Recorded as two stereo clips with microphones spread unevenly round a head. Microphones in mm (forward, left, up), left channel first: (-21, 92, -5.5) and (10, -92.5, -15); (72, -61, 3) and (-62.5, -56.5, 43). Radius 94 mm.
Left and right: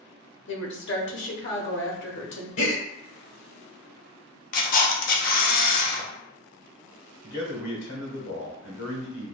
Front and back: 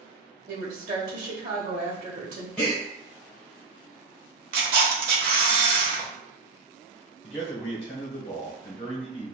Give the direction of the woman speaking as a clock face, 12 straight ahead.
8 o'clock.